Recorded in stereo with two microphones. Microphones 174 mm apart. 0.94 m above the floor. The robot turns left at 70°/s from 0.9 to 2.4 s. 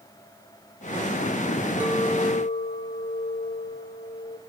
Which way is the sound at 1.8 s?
170° right.